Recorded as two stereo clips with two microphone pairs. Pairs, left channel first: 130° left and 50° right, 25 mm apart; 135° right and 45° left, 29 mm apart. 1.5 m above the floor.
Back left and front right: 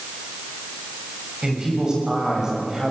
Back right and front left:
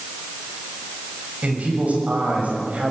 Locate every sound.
1.4 s a man speaking: 10° left, 7.5 m; by 2.9 s 20° left, 7 m